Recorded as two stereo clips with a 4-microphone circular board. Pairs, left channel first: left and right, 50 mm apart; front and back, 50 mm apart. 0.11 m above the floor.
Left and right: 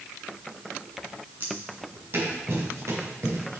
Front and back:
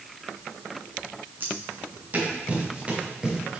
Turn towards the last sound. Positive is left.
turn(degrees=-110)